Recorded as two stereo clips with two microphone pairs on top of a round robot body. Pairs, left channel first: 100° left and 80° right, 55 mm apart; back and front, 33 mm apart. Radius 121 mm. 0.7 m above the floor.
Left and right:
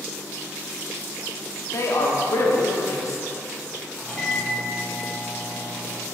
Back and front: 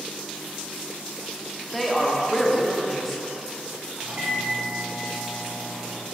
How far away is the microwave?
About 2.5 m.